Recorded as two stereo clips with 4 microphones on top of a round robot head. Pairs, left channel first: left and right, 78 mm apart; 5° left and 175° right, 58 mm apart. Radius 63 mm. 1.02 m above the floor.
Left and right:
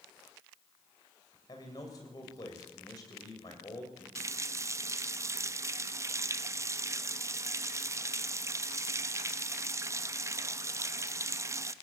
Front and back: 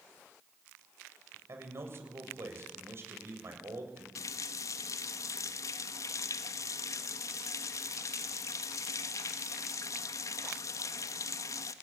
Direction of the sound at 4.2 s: 35° right.